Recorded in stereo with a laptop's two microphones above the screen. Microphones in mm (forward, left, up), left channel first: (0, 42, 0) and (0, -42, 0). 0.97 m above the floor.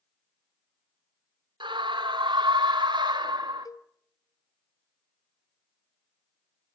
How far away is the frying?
No frying in this recording.